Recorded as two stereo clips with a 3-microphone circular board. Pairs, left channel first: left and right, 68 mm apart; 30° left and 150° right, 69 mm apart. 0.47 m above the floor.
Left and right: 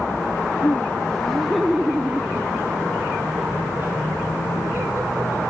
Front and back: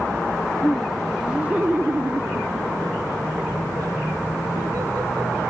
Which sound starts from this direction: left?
Laughter, at 0.6 s.